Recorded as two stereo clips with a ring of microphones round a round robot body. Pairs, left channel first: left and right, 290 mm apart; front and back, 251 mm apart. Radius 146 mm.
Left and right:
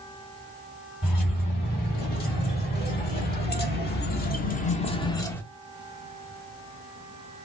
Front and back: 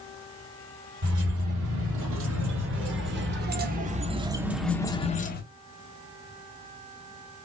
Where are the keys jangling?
150° left, 3 m; by 5.4 s 10° left, 0.9 m.